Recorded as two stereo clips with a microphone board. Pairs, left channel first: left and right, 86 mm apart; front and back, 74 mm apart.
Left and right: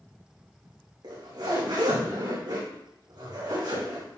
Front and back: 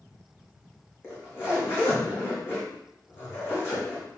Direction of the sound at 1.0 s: 55° right.